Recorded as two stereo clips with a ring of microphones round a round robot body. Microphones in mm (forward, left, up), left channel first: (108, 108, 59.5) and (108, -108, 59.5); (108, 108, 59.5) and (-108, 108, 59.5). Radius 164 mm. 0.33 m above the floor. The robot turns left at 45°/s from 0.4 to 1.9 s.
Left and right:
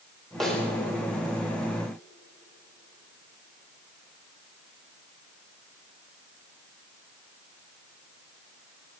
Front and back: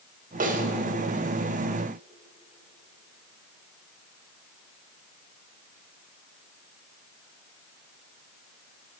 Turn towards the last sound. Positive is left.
turn(degrees=110)